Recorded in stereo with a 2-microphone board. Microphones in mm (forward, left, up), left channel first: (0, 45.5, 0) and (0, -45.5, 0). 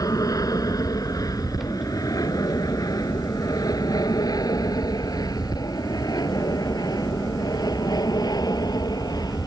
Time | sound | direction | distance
0.0 | an aircraft | 40° left (ahead or behind) | ?